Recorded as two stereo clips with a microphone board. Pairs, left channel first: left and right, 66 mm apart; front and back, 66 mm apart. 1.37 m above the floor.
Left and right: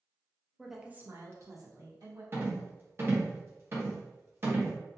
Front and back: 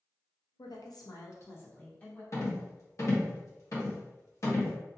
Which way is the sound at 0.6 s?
5° left.